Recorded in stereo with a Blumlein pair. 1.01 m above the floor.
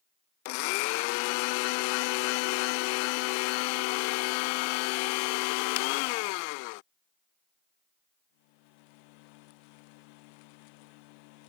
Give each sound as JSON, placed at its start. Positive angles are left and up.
{"t": 0.5, "sound": "a blender", "azimuth_deg": 45}